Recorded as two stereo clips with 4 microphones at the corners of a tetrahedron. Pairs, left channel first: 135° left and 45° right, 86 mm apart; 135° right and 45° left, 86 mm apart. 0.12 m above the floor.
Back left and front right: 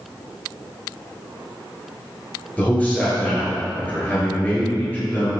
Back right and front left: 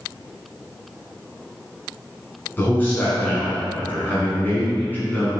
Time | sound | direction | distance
2.6 | a man speaking | 175° right | 1.2 m